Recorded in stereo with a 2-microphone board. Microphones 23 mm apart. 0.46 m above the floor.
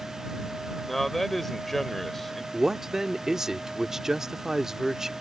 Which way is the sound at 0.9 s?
10° left (ahead or behind).